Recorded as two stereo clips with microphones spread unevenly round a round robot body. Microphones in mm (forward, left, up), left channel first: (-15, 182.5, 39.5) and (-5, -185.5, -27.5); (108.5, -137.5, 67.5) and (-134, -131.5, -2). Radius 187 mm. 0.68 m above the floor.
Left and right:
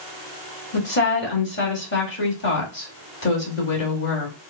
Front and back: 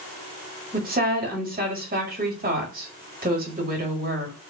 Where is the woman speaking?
155° left, 1.7 m.